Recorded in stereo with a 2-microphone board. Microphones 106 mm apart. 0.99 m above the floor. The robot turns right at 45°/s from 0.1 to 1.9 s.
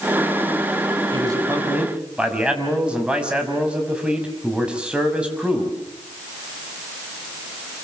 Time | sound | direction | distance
1.1 | a man speaking | 45° right | 6 m